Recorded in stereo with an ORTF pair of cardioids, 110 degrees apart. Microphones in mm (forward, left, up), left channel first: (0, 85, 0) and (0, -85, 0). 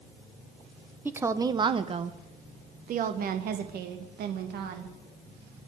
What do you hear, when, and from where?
1.1 s a woman speaking: 10° right, 1.1 m; by 4.9 s 75° right, 2.5 m